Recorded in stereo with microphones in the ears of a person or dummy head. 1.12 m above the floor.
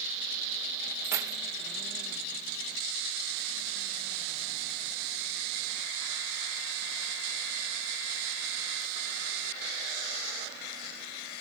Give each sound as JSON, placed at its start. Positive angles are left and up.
{"t": 1.0, "sound": "keys jangling", "side_deg": -15, "distance_m": 0.5}